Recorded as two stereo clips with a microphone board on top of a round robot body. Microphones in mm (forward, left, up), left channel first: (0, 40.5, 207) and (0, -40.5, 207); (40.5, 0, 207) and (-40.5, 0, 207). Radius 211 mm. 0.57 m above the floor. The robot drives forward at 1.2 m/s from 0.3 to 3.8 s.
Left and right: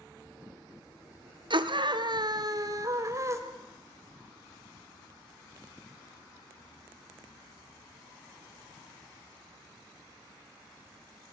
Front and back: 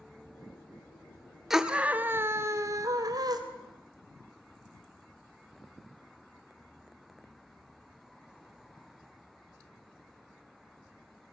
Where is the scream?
95° right, 1.8 m; by 3.4 s 145° right, 3 m.